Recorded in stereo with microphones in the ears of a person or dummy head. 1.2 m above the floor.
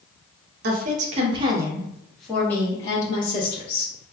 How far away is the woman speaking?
About 0.9 m.